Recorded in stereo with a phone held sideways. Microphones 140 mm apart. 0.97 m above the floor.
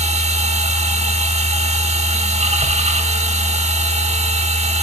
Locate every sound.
0.0 s a machine running: 50° right (ahead or behind), 1.1 m